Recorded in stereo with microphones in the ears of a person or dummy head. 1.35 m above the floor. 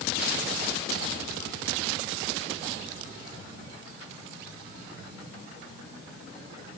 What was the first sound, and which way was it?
Only background noise.